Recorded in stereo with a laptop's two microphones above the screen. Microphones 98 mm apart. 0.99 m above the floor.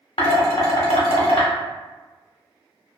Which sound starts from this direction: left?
Dishes clattering, at 0.2 s.